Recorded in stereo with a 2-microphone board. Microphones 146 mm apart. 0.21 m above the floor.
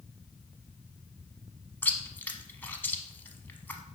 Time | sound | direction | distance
1.8 | chewing | 15° left (ahead or behind) | 0.8 m